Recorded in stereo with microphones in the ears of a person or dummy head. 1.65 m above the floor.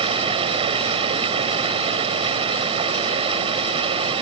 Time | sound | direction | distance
0.0 | running water | 30° right (ahead or behind) | ?